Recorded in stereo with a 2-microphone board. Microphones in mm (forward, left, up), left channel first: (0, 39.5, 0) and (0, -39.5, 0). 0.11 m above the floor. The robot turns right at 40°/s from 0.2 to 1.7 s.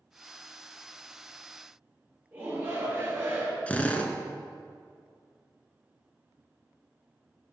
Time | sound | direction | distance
2.3 | a shout | 30° right (ahead or behind) | 2 m
3.7 | a drill | 20° left (ahead or behind) | 0.6 m